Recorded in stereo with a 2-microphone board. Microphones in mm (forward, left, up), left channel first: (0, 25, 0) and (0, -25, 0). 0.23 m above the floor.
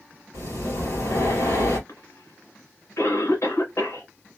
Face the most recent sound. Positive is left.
turn(degrees=65)  # may be behind; listen again after turning